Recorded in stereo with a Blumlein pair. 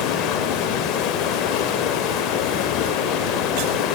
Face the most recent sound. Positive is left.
turn(degrees=35)